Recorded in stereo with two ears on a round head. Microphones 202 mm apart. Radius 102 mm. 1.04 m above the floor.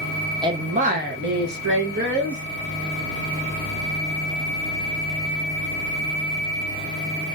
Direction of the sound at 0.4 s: 20° right (ahead or behind).